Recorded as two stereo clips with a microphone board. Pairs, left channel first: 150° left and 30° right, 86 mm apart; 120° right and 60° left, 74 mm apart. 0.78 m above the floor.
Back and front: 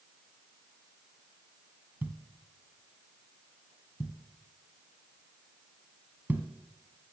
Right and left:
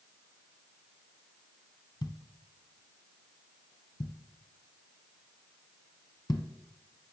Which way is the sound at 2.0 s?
100° right.